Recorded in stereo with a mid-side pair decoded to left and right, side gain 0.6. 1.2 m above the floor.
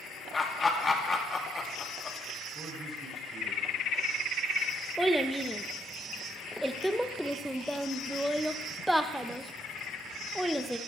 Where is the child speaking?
5° right, 0.8 m.